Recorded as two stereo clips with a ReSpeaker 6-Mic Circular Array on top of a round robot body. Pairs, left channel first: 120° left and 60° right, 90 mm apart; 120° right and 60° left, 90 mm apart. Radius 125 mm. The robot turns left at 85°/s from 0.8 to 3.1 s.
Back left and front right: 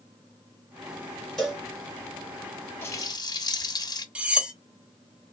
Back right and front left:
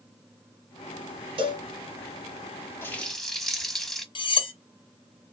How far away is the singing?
No singing in this recording.